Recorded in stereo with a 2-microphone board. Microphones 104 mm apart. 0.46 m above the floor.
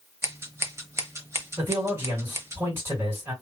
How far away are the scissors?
About 0.6 m.